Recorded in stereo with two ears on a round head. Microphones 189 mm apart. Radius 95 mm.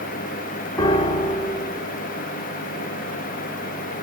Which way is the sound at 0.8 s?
25° left (ahead or behind).